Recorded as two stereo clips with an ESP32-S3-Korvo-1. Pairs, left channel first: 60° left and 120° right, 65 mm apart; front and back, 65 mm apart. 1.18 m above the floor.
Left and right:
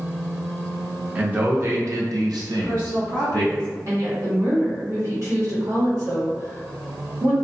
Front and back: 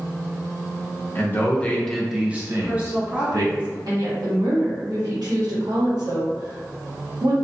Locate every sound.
1.1 s a man speaking: 55° right, 0.8 m; by 3.5 s 155° right, 1.0 m
2.5 s a woman speaking: 110° right, 1.7 m
3.9 s a woman speaking: 160° right, 1.1 m